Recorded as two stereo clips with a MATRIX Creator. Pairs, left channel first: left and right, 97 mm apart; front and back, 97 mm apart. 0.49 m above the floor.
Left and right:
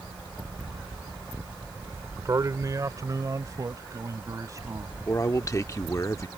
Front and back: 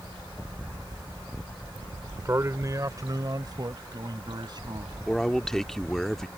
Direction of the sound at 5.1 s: 85° left.